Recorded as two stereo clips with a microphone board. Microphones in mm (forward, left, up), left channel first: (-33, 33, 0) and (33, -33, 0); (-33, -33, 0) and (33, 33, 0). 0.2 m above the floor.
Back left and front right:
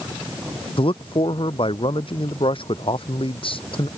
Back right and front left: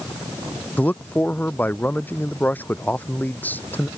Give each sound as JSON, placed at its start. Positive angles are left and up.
{"t": 0.8, "sound": "a man speaking", "azimuth_deg": 155}